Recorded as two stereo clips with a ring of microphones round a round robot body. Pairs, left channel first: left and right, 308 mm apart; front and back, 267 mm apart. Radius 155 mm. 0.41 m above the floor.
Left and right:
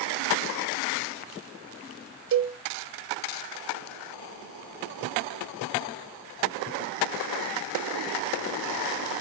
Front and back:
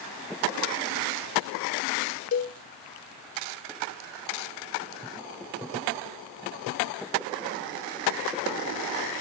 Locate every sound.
2.3 s a cowbell: 45° right, 0.5 m